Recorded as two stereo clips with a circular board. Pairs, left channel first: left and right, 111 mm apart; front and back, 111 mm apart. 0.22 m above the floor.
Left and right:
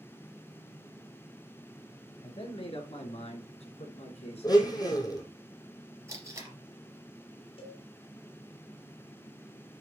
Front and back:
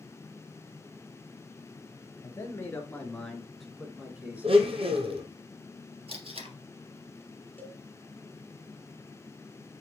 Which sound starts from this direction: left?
A cowbell, at 7.6 s.